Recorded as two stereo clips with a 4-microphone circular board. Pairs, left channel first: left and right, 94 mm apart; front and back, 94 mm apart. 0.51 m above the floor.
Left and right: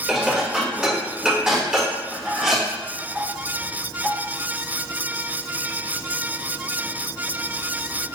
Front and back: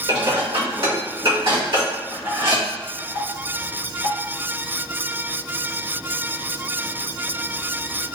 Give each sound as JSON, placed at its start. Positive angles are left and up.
{"t": 0.1, "sound": "dishes clattering", "azimuth_deg": -170, "distance_m": 1.3}